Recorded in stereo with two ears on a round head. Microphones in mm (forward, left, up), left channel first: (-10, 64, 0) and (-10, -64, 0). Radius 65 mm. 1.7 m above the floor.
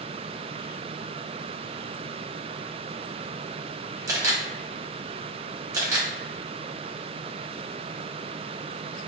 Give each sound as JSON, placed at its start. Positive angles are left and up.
{"t": 4.1, "sound": "a camera shutter", "side_deg": -25, "distance_m": 0.7}